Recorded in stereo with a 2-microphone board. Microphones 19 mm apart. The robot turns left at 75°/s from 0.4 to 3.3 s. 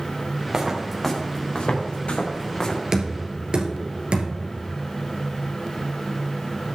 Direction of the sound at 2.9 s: 30° right (ahead or behind).